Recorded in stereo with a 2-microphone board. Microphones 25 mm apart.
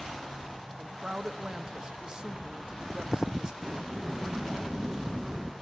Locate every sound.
0.8 s a woman speaking: 35° right (ahead or behind), 0.8 m
3.6 s a sliding door: 15° right (ahead or behind), 0.5 m